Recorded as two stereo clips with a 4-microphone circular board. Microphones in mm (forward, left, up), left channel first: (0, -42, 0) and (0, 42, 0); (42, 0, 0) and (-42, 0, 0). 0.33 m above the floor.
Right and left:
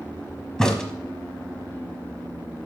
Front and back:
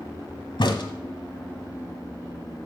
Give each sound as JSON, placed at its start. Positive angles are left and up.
{"t": 0.6, "sound": "a crack", "azimuth_deg": -10, "distance_m": 1.1}